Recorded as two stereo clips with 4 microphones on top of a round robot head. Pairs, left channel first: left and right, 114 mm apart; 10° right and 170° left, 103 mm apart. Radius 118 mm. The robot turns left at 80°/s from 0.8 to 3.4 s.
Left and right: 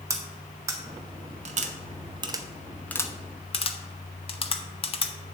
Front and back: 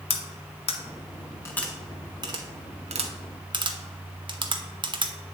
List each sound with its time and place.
0.1 s cutlery clinking: 25° right, 1.0 m; by 5.1 s 125° left, 1.0 m